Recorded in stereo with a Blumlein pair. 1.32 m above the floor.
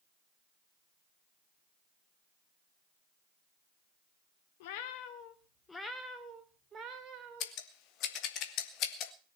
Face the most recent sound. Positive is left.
turn(degrees=35)